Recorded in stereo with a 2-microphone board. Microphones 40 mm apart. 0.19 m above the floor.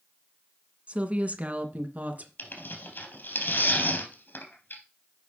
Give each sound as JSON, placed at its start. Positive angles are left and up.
{"t": 0.9, "sound": "a woman speaking", "side_deg": -30, "distance_m": 1.7}
{"t": 2.4, "sound": "tearing paper", "side_deg": 60, "distance_m": 3.0}